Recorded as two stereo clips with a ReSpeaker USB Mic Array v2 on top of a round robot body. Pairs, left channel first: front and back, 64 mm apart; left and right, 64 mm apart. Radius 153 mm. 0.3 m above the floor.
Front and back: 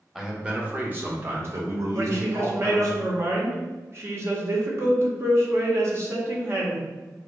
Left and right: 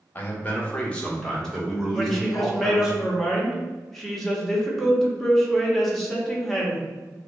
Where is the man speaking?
105° left, 1.5 m; by 3.0 s 170° right, 2.5 m.